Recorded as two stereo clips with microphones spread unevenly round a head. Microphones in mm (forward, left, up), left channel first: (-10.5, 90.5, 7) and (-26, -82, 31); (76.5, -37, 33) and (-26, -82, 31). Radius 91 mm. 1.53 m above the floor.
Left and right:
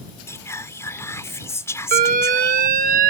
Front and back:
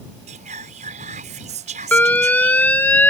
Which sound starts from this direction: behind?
Whispering, at 0.3 s.